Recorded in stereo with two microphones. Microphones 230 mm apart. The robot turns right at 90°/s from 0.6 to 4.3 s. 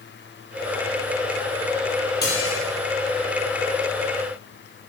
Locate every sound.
2.2 s dishes clattering: 45° left, 3 m; by 2.6 s 80° left, 3 m